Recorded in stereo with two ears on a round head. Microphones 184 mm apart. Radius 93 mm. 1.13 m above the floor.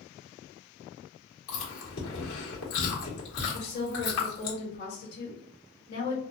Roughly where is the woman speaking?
Left.